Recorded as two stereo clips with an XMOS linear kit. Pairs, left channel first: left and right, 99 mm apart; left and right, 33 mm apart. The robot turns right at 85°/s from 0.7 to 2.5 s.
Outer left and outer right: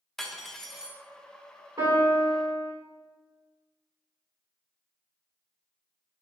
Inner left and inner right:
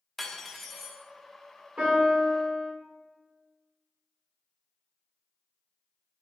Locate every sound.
0.2 s cutlery clinking: 5° left (ahead or behind), 0.6 m; by 1.0 s 20° right (ahead or behind), 0.6 m
1.8 s a piano: 145° right, 2 m; by 2.7 s 85° right, 2 m